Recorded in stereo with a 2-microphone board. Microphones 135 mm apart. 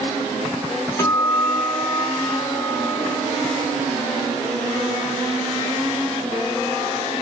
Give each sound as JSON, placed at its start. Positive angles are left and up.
{"t": 1.0, "sound": "a guitar", "side_deg": 20, "distance_m": 3.0}